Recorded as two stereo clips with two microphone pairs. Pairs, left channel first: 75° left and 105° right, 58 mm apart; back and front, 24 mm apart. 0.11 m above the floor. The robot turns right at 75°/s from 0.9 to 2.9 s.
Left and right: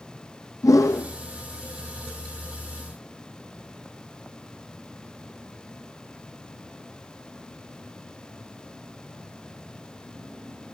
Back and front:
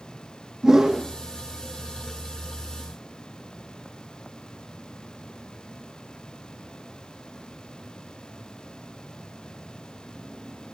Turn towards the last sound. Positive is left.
turn(degrees=-140)